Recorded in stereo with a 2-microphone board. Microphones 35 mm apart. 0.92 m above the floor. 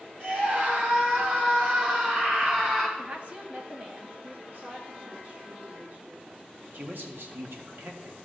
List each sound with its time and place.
0.2 s a scream: 50° right (ahead or behind), 4.5 m; by 2.9 s 30° right (ahead or behind), 4.5 m
3.0 s a woman speaking: 35° right (ahead or behind), 1.4 m
4.5 s a woman speaking: 70° right (ahead or behind), 3.5 m
6.7 s a man speaking: 65° right (ahead or behind), 1.5 m